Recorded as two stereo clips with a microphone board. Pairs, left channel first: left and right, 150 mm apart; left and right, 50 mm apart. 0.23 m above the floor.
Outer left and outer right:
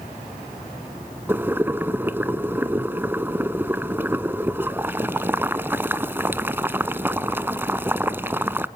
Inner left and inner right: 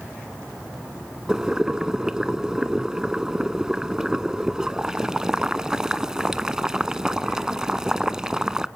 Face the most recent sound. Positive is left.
turn(degrees=-15)  # may be behind; listen again after turning